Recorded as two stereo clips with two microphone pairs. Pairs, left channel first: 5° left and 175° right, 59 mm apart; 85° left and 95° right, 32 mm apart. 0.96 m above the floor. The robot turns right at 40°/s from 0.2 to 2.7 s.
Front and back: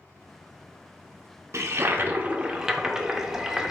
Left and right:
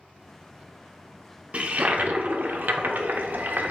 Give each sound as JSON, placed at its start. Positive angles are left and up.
{"t": 1.5, "sound": "a toilet flushing", "azimuth_deg": -140, "distance_m": 0.5}